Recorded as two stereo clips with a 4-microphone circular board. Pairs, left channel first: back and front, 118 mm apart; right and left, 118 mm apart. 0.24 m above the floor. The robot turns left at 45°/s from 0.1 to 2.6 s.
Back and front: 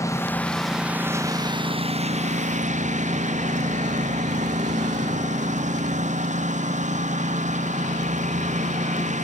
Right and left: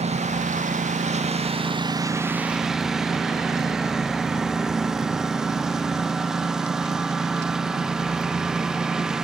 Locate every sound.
0.0 s a lawn mower: 115° left; by 9.2 s 5° left